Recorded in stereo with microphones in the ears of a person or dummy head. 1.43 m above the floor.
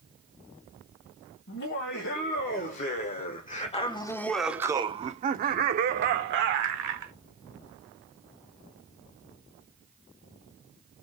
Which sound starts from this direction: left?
Laughter, at 1.5 s.